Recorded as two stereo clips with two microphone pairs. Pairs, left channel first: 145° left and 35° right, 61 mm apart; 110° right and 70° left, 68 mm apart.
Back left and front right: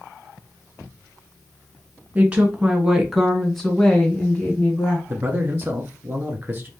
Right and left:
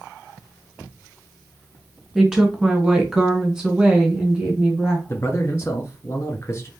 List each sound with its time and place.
2.1 s a woman speaking: 5° right, 1.5 m; by 5.0 s 140° left, 1.5 m
5.1 s a man speaking: 80° right, 1.4 m